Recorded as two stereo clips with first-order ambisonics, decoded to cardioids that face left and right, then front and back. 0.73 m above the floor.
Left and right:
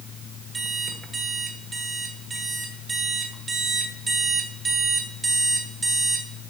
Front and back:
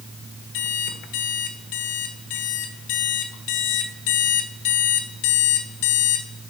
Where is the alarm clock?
15° right, 1.2 m.